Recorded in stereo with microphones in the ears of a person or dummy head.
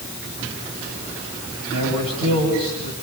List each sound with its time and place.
1.7 s a man speaking: 55° right (ahead or behind), 9.5 m